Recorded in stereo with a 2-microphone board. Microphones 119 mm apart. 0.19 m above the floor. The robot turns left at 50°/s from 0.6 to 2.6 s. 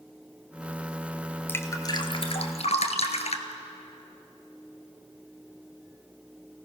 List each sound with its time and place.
1.5 s dripping: 15° left (ahead or behind), 1.6 m; by 3.5 s 65° left (ahead or behind), 1.6 m